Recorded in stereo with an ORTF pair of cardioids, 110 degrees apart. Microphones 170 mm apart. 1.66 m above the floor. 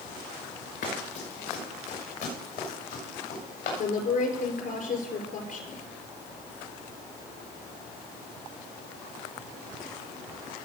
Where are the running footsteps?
70° left, 7 m.